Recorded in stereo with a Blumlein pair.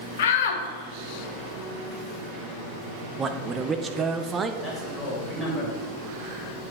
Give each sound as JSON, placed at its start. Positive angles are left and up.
{"t": 0.2, "sound": "a shout", "azimuth_deg": 55, "distance_m": 1.0}
{"t": 3.2, "sound": "a man speaking", "azimuth_deg": -15, "distance_m": 0.8}
{"t": 4.6, "sound": "a man speaking", "azimuth_deg": 10, "distance_m": 3.0}